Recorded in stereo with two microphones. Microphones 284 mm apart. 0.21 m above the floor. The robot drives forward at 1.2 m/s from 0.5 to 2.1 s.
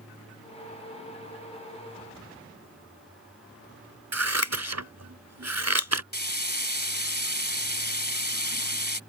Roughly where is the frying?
Left.